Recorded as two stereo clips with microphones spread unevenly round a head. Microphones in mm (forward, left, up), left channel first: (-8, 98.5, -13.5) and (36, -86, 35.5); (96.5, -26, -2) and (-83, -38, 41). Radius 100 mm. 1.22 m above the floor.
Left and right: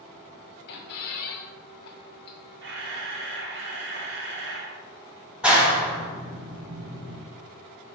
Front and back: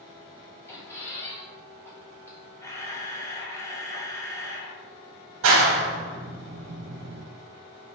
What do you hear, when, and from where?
0.7 s a squeak: 95° left, 0.6 m
2.6 s a camera shutter: 75° right, 0.8 m
5.4 s a clap: 165° right, 0.8 m